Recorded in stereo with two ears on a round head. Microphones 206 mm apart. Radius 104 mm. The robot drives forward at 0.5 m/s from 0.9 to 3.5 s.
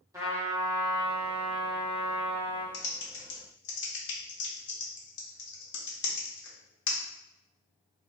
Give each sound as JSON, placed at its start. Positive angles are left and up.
{"t": 0.1, "sound": "a trumpet", "side_deg": -15, "distance_m": 1.0}
{"t": 2.7, "sound": "typing on a keyboard", "side_deg": 60, "distance_m": 0.8}